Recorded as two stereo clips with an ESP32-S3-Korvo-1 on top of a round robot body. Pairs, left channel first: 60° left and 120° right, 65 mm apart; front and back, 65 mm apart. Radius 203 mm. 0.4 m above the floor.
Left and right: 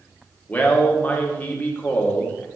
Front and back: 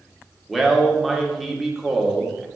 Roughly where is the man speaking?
Left.